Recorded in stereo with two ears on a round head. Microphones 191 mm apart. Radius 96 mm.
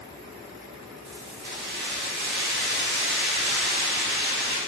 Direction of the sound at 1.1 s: 55° right (ahead or behind).